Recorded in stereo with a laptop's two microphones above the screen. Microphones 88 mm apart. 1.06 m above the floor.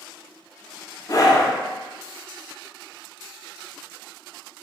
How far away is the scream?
About 0.5 m.